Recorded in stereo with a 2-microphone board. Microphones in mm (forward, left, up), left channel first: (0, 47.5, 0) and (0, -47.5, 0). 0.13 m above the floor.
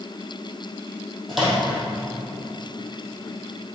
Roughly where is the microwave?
Centre.